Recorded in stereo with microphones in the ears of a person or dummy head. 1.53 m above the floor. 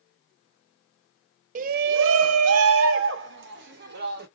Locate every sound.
1.6 s a shout: 40° right (ahead or behind), 0.5 m; by 4.3 s 45° right (ahead or behind), 1.5 m